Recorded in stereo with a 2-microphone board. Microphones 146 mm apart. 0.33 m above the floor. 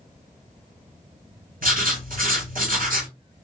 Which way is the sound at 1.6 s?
70° right (ahead or behind).